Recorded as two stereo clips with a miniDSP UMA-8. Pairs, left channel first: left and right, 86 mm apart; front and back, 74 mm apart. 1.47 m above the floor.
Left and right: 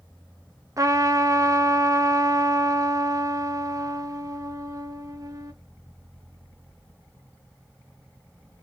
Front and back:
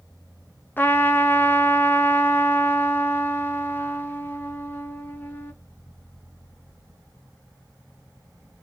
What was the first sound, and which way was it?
A trumpet, 55° right.